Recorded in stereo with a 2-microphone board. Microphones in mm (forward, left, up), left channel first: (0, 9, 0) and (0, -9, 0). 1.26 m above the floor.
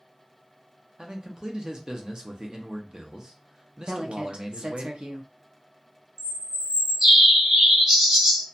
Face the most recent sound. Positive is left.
turn(degrees=-25)  # may be behind; listen again after turning